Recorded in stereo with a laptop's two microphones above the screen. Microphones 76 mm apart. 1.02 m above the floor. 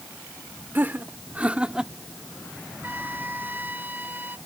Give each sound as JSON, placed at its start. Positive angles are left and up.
{"t": 0.8, "sound": "laughter", "side_deg": -25}
{"t": 2.8, "sound": "a flute", "side_deg": -25}